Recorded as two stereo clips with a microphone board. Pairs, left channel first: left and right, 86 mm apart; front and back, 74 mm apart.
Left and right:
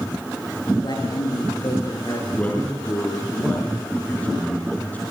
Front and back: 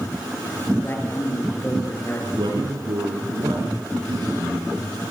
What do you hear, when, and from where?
0.8 s a man speaking: 60° left, 8 m
2.4 s a man speaking: 160° left, 4.5 m